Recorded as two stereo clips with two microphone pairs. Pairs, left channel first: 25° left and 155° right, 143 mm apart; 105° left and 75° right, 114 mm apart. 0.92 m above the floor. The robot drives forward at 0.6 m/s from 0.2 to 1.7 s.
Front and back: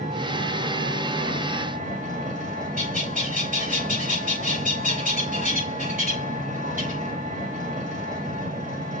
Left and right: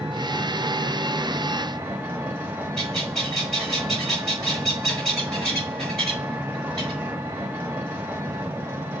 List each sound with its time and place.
0.0 s an engine running: 140° right, 3.5 m; by 9.0 s 150° right, 4 m
2.8 s a bird: 170° right, 5 m